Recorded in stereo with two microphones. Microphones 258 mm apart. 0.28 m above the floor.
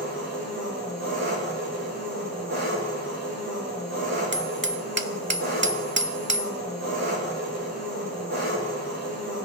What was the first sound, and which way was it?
An engine running, 80° right.